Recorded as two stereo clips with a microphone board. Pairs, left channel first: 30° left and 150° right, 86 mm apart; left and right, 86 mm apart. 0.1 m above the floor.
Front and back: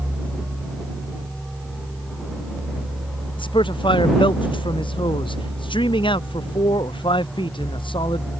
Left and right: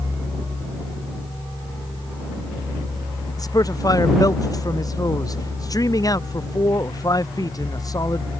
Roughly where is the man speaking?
Ahead left.